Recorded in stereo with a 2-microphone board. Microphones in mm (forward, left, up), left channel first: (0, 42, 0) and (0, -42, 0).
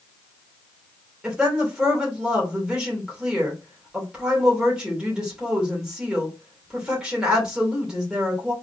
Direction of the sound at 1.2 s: 10° right (ahead or behind).